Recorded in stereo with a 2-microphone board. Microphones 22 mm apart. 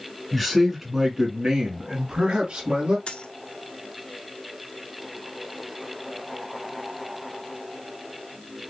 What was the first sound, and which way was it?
A man speaking, centre (ahead or behind).